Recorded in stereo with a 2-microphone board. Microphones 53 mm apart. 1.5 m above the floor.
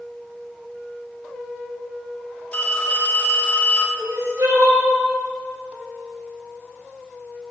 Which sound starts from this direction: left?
A phone ringing, at 2.5 s.